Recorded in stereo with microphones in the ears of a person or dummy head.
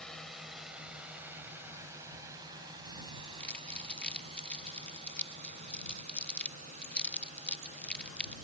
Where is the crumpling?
5° left (ahead or behind).